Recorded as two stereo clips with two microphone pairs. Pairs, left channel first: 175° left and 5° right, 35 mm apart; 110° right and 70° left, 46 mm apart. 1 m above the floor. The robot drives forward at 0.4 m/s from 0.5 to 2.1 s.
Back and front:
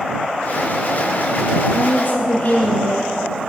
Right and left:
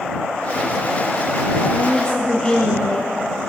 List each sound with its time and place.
1.7 s a woman speaking: 170° right, 0.5 m